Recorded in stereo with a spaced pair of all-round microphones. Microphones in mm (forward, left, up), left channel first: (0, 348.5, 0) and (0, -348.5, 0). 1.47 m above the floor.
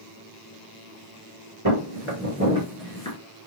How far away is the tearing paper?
I don't hear tearing paper.